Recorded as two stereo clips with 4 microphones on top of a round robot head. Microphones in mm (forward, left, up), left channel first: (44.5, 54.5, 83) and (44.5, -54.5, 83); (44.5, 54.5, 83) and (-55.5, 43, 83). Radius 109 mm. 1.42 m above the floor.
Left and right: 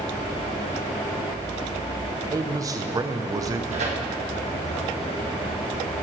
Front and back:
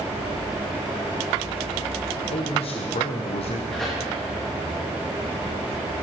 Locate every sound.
2.3 s a man speaking: 30° right, 0.8 m
3.7 s tearing paper: 80° right, 1.7 m